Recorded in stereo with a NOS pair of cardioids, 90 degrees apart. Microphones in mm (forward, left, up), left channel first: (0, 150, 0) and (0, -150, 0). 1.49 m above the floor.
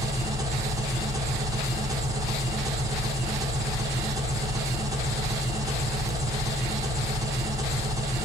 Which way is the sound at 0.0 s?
10° right.